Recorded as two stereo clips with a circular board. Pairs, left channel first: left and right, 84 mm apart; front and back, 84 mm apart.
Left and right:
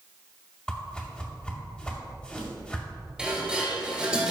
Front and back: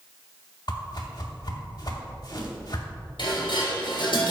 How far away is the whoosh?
About 2.5 m.